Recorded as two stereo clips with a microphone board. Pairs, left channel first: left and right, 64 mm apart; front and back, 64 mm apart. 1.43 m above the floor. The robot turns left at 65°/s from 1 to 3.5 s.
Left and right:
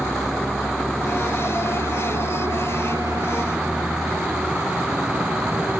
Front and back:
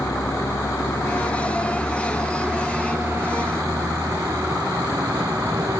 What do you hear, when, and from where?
0.0 s a vehicle: straight ahead; by 5.8 s 160° right